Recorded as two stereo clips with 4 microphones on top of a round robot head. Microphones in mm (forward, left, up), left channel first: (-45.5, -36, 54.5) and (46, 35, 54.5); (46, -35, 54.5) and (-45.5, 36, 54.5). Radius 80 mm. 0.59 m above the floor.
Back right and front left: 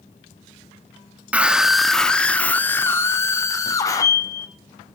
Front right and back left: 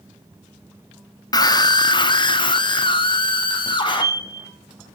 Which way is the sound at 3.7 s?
Straight behind.